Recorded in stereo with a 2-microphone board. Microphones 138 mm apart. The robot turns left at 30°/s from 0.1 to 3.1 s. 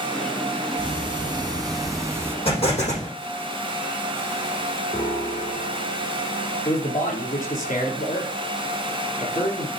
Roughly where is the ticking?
Right.